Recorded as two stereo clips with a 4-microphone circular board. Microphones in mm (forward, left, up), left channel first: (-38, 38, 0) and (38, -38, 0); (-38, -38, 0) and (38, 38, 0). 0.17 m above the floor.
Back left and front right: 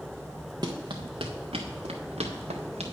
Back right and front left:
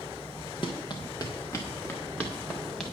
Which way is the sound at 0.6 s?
95° right.